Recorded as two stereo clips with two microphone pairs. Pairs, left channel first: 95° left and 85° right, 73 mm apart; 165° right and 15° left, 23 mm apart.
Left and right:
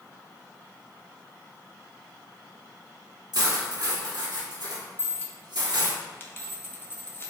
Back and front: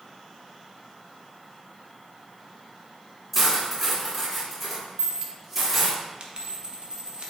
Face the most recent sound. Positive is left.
turn(degrees=40)